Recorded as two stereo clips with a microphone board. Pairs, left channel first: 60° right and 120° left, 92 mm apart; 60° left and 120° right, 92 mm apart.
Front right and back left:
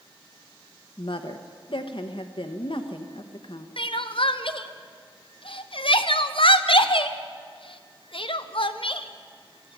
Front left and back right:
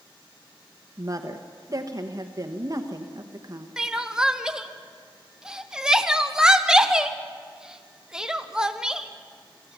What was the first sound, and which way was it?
A woman speaking, 75° right.